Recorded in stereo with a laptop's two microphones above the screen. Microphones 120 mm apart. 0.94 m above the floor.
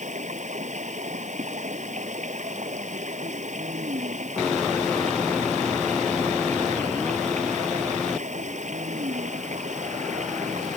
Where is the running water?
90° right.